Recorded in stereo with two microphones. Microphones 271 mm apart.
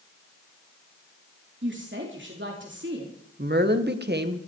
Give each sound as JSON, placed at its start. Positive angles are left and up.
{"t": 1.6, "sound": "a woman speaking", "side_deg": -45, "distance_m": 2.5}
{"t": 3.4, "sound": "a woman speaking", "side_deg": -40, "distance_m": 1.5}